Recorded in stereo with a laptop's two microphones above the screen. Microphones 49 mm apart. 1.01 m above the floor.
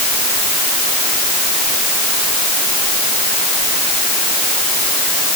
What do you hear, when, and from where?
Only background noise.